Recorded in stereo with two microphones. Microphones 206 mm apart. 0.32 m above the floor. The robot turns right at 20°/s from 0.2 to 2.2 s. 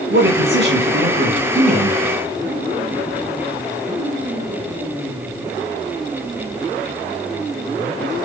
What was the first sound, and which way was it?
A man speaking, 75° right.